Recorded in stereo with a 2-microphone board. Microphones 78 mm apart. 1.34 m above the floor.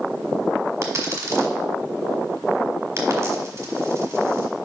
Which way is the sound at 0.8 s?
40° right (ahead or behind).